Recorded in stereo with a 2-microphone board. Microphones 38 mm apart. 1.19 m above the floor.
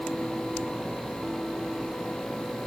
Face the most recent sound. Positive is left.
No sound to turn to.